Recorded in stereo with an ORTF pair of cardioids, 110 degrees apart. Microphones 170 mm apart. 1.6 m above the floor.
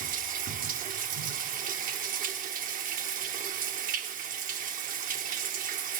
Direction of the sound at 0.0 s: 60° right.